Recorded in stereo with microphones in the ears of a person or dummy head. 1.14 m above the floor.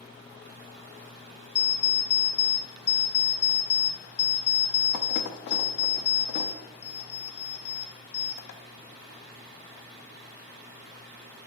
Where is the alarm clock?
55° left (ahead or behind), 0.6 m.